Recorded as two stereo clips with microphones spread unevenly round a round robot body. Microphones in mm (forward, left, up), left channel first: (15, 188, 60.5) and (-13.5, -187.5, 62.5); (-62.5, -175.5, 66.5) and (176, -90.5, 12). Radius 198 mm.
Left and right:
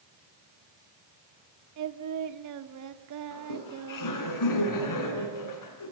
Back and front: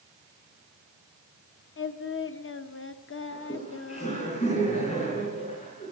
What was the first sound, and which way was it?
Singing, 120° right.